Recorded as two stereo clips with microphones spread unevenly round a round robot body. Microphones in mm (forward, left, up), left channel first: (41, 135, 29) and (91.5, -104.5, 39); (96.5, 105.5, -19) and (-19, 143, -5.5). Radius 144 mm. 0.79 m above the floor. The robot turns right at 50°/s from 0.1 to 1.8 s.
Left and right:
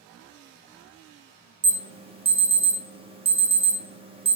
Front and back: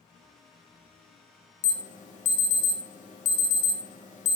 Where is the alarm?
15° right, 0.8 m; by 4.4 s 10° right, 0.8 m.